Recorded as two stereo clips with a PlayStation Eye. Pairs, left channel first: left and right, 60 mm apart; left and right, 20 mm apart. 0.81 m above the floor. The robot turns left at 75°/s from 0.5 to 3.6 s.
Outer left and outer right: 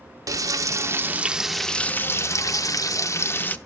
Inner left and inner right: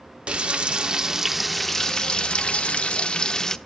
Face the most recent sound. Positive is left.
turn(degrees=25)